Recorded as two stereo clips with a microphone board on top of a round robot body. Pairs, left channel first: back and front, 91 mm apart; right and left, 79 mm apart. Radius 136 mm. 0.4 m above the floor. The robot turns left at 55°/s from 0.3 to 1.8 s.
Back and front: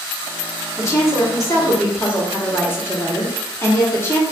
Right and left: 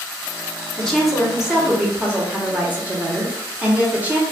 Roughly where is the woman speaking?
Behind.